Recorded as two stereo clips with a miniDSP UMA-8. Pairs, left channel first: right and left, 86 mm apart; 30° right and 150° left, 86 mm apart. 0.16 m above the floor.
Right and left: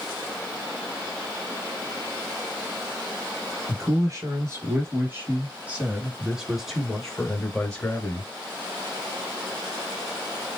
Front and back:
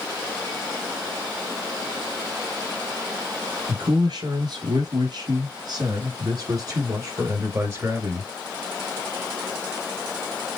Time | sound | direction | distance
3.7 | a man speaking | 135° left | 2.5 m